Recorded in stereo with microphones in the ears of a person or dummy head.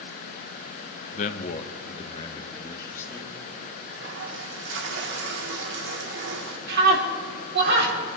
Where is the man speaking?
45° left (ahead or behind), 0.9 m; by 3.4 s 10° left (ahead or behind), 1.8 m.